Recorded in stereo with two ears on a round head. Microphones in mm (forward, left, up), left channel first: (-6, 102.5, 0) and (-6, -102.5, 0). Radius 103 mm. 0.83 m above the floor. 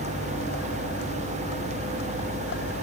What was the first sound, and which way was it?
A vehicle, 50° left (ahead or behind).